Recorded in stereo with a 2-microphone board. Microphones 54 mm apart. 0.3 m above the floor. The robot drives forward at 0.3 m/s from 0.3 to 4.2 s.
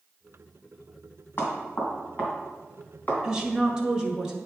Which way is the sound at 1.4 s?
40° left (ahead or behind).